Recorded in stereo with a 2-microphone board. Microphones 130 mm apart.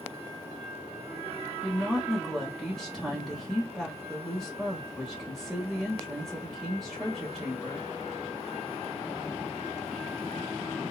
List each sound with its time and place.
1.6 s a woman speaking: 5° right (ahead or behind), 1.1 m